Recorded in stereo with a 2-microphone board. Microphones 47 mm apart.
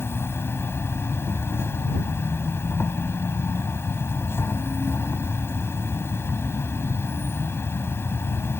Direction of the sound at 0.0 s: 75° left (ahead or behind).